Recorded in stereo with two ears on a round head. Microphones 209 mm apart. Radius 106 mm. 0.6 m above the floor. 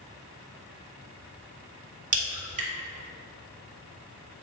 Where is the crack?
35° right (ahead or behind), 1.6 m.